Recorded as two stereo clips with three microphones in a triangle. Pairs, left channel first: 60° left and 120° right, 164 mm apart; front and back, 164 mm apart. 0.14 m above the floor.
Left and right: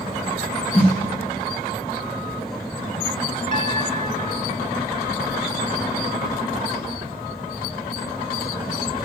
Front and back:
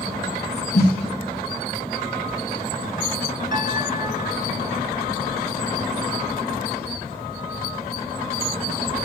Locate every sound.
0.7 s a snare drum: 5° left, 3 m
3.5 s a piano: 125° right, 0.5 m